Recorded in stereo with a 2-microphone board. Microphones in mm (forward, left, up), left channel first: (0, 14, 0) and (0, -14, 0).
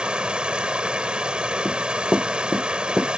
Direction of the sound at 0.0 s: 40° right (ahead or behind).